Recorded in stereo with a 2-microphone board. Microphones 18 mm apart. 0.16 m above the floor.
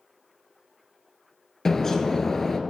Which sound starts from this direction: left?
A bird, at 1.6 s.